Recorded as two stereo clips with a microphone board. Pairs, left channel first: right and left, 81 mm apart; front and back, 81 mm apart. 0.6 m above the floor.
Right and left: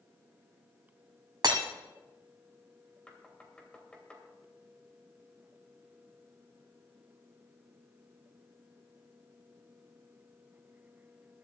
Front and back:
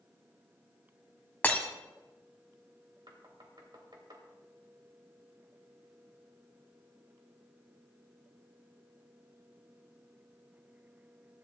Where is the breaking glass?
70° left, 1.5 m.